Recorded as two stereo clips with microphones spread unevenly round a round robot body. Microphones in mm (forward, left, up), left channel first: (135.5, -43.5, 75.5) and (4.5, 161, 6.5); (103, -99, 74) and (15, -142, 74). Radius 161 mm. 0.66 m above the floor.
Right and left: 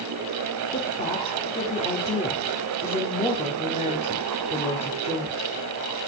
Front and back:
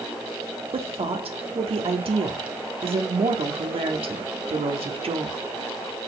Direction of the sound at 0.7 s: 135° right.